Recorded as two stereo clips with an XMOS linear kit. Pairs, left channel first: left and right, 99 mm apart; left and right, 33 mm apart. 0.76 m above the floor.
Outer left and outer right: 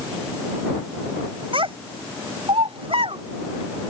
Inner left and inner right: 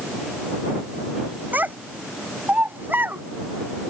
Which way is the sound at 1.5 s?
65° right (ahead or behind).